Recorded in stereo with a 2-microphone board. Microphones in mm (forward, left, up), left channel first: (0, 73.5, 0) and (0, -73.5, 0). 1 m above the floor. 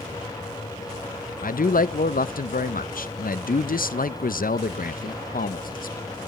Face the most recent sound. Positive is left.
turn(degrees=70)  # may be behind; listen again after turning